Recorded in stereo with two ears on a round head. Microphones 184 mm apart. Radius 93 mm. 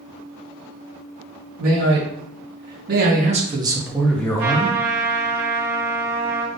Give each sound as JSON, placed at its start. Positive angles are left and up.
{"t": 1.6, "sound": "a man speaking", "side_deg": -75, "distance_m": 1.7}
{"t": 4.4, "sound": "a trumpet", "side_deg": -55, "distance_m": 1.2}